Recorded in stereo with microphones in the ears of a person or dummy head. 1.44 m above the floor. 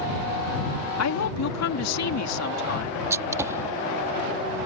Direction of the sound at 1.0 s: 80° left.